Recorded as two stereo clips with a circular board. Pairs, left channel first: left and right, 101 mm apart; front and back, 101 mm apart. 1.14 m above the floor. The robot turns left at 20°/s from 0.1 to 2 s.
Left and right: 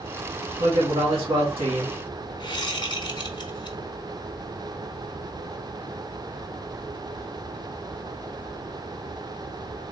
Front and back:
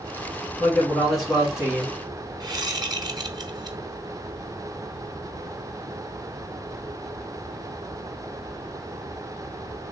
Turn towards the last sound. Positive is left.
turn(degrees=130)